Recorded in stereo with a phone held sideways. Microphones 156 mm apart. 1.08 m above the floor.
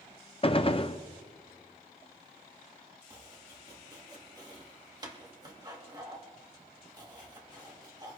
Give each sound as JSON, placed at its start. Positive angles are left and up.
{"t": 0.4, "sound": "a gunshot", "side_deg": 35, "distance_m": 0.6}
{"t": 3.1, "sound": "chopping", "side_deg": -25, "distance_m": 2.0}